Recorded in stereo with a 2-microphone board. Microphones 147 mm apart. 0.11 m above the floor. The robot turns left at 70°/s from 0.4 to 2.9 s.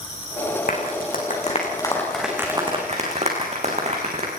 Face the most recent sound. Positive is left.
turn(degrees=-50)  # may be behind; listen again after turning